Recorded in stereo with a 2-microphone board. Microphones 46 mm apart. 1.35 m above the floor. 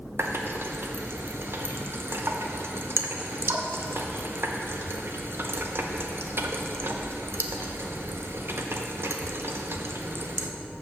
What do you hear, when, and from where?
0.2 s a running tap: 60° right (ahead or behind), 0.6 m